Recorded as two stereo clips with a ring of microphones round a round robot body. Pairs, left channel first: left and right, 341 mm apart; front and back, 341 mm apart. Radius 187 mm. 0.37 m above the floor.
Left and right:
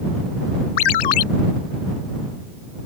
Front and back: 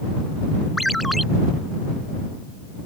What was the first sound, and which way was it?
A ringtone, 90° left.